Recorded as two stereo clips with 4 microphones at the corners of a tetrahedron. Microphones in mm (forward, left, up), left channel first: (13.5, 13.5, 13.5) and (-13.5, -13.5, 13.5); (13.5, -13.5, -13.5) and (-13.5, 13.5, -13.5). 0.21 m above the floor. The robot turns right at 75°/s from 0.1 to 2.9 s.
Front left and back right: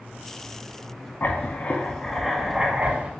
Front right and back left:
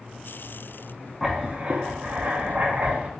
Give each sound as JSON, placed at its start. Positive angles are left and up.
{"t": 1.2, "sound": "writing", "azimuth_deg": 50, "distance_m": 0.6}